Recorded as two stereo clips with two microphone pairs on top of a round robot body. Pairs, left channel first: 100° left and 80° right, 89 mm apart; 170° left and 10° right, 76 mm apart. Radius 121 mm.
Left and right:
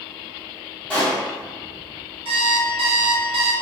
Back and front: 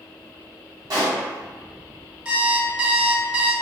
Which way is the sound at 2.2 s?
80° right.